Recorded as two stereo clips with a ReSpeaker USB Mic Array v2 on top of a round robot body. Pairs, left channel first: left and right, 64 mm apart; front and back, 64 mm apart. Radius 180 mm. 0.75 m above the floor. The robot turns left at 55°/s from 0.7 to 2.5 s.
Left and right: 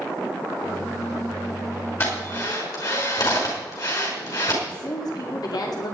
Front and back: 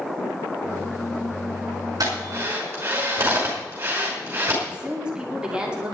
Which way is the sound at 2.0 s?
145° left.